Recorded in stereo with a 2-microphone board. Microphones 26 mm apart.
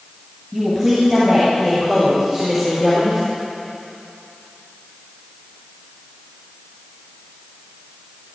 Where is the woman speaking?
20° right (ahead or behind), 5.5 m; by 3.2 s 35° right (ahead or behind), 5.5 m.